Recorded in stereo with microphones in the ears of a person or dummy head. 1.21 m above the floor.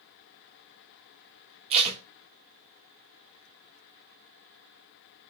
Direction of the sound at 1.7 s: 35° right (ahead or behind).